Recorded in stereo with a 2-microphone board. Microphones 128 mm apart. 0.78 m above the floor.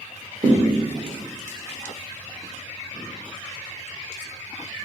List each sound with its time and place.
0.4 s a thud: 35° right (ahead or behind), 0.8 m